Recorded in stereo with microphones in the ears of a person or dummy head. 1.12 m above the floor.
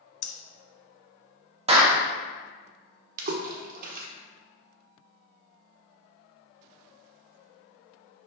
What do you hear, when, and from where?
0.2 s breathing: 65° left (ahead or behind), 0.7 m
1.7 s a clap: 35° right (ahead or behind), 1.2 m
3.2 s a splash: 50° right (ahead or behind), 1.2 m